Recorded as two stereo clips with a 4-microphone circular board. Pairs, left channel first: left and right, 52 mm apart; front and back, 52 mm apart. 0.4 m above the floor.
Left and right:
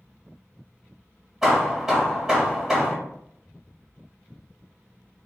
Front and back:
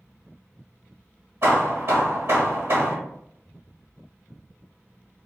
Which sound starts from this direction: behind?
Hammering, at 1.4 s.